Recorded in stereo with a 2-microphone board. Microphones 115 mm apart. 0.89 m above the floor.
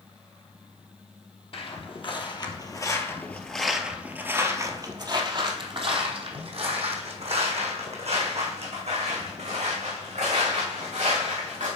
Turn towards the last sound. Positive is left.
turn(degrees=-75)  # may be behind; listen again after turning